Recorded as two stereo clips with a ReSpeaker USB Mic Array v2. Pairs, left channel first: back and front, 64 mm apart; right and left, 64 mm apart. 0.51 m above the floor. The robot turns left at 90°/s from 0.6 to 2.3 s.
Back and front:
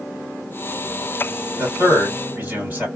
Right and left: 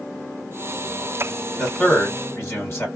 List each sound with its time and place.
1.6 s a man speaking: 15° left, 2 m; by 2.9 s 50° right, 2 m